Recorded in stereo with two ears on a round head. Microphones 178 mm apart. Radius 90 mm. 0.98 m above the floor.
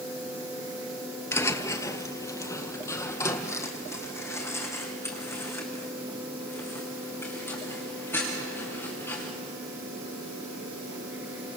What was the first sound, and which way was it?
Footsteps, 15° left (ahead or behind).